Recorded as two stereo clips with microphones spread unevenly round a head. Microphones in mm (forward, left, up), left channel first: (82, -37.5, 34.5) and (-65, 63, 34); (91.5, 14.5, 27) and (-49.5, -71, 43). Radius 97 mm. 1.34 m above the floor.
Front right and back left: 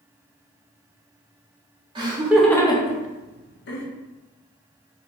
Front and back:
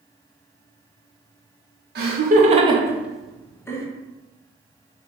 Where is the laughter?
160° right, 0.8 m; by 3.9 s 35° right, 1.1 m.